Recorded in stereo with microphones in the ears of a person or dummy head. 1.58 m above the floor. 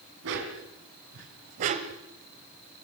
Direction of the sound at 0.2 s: 65° right (ahead or behind).